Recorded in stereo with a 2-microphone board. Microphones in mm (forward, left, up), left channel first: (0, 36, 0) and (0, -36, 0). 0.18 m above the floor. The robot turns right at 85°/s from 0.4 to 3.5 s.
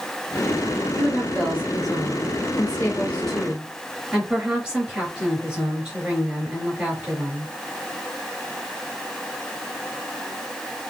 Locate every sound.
1.0 s a woman speaking: 20° right, 3 m; by 7.5 s 165° right, 3 m